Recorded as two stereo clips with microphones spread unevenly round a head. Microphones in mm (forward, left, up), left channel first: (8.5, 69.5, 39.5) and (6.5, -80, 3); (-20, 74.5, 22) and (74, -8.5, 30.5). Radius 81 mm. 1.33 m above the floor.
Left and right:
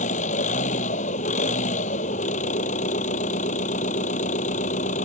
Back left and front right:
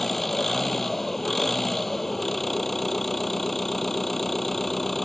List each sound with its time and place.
0.0 s an engine running: 50° left